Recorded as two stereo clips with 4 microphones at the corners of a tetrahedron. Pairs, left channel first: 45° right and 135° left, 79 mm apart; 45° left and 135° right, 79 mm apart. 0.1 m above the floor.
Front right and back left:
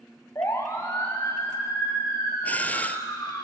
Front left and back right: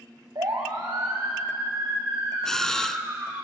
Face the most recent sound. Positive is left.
turn(degrees=-30)